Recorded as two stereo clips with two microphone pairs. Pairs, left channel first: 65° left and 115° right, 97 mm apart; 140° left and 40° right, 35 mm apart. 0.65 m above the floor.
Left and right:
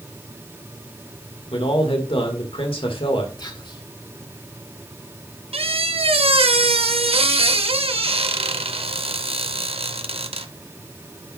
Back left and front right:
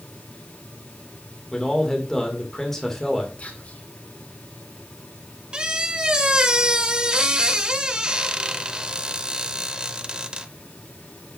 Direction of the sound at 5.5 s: 105° right.